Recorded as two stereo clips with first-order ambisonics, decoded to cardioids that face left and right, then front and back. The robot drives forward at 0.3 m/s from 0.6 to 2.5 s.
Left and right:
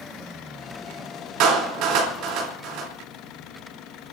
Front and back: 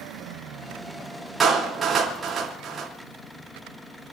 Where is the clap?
110° right, 3.5 m; by 2.9 s 115° right, 3.5 m.